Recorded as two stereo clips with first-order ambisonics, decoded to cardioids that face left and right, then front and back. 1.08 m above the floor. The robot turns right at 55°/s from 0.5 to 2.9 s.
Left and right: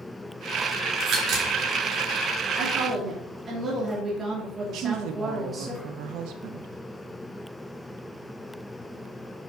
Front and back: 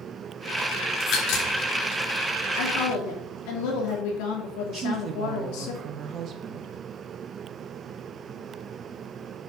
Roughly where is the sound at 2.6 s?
Ahead right.